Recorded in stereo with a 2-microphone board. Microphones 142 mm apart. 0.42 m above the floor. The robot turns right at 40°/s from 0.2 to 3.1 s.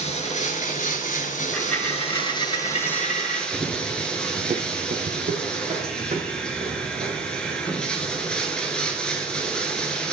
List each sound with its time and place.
0.0 s running water: 55° left, 1.1 m; by 10.1 s 175° left, 1.1 m
1.5 s a dropped coin: straight ahead, 2 m; by 3.4 s 65° left, 2 m
3.5 s running footsteps: 20° right (ahead or behind), 1.3 m; by 10.0 s 40° right (ahead or behind), 6 m